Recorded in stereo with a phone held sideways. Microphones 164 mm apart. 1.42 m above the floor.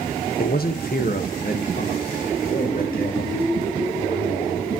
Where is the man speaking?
70° left (ahead or behind), 1.0 m; by 4.8 s 60° left (ahead or behind), 4.5 m.